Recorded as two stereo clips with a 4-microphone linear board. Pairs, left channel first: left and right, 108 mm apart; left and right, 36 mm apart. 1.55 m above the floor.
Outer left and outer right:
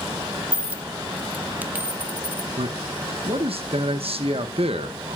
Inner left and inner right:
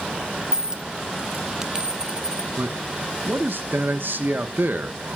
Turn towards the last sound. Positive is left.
turn(degrees=-70)  # may be behind; listen again after turning